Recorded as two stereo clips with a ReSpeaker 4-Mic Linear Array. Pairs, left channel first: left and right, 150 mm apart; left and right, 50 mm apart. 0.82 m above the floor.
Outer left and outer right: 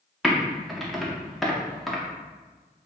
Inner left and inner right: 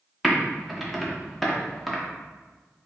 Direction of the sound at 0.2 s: Centre (ahead or behind).